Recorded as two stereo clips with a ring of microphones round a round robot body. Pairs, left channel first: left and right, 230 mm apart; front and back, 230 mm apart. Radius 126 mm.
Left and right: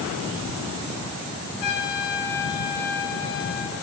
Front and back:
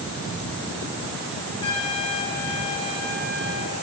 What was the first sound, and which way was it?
A trumpet, 75° left.